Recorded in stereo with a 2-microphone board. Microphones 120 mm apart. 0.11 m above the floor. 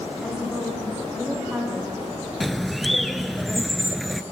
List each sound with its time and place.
0.2 s a woman speaking: centre (ahead or behind), 9.5 m; by 2.0 s 5° right (ahead or behind), 7.5 m
2.4 s a bird: centre (ahead or behind), 0.6 m